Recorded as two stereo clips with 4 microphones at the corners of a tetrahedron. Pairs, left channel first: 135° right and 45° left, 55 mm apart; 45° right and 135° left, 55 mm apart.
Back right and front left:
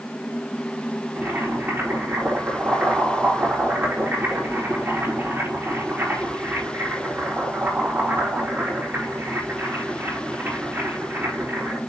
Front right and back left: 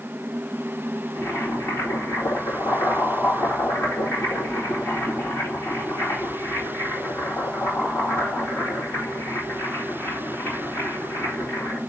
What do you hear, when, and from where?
1.1 s boiling: straight ahead, 4 m